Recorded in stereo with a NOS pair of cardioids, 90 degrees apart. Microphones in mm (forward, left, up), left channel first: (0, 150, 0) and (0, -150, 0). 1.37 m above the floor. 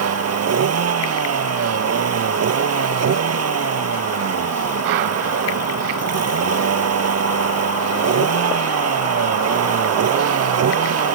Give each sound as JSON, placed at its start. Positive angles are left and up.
{"t": 0.0, "sound": "a vehicle", "azimuth_deg": -55}